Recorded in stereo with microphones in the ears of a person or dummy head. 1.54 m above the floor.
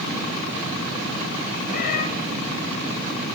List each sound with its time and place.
1.7 s a cat meowing: 50° left (ahead or behind), 4.5 m